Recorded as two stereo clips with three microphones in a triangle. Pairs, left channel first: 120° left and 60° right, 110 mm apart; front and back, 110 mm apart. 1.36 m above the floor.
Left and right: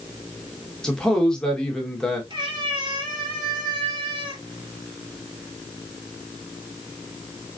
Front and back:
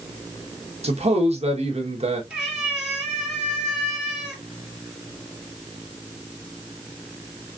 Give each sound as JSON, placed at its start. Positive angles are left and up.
{"t": 0.8, "sound": "a man speaking", "azimuth_deg": -155, "distance_m": 1.6}
{"t": 2.3, "sound": "a cat meowing", "azimuth_deg": -95, "distance_m": 2.5}